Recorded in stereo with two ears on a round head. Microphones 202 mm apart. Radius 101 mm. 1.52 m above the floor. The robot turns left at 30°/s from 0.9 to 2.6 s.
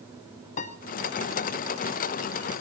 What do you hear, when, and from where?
0.6 s a piano: 35° left (ahead or behind), 0.7 m